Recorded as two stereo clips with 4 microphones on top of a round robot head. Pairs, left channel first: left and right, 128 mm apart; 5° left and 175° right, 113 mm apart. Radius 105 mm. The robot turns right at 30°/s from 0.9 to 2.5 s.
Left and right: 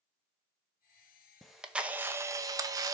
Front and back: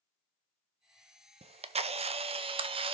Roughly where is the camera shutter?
Behind.